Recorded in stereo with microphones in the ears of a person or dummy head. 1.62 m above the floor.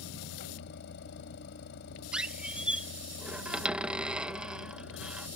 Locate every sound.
0.0 s a vehicle: 65° left (ahead or behind)
2.1 s a squeak: 5° right (ahead or behind)